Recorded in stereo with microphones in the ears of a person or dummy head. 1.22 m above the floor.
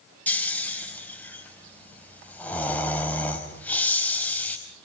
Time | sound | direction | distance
0.3 | snoring | 15° left (ahead or behind) | 4 m